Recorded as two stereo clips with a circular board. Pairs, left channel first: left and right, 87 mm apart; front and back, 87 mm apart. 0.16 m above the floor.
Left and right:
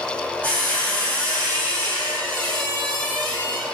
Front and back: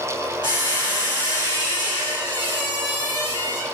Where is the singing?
No singing in this recording.